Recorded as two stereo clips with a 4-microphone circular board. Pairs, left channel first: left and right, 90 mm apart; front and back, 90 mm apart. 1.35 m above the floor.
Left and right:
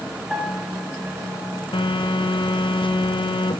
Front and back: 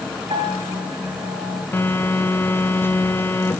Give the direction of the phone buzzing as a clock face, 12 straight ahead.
10 o'clock.